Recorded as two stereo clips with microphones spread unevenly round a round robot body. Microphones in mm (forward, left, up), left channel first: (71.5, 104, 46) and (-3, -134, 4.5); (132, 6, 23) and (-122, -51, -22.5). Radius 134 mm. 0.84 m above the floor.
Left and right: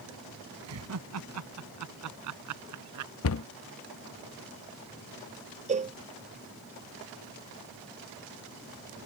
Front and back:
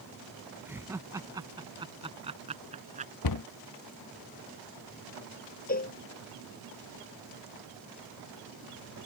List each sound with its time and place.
0.7 s laughter: 85° right; by 3.1 s 100° right
3.2 s a cupboard door: 35° left
5.7 s a cowbell: 45° right